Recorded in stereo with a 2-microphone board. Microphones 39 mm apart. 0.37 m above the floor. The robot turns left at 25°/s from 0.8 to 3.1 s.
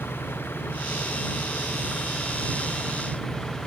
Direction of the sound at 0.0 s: 70° left.